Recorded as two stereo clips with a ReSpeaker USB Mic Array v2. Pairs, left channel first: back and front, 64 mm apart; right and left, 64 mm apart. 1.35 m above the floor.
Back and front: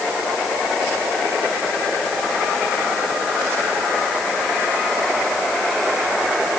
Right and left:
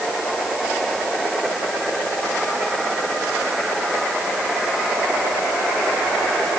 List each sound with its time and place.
Only background noise.